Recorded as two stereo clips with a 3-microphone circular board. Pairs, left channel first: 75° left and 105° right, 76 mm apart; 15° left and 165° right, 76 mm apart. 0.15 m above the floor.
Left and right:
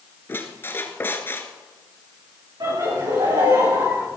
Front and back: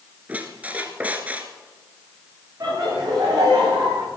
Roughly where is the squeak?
Behind left.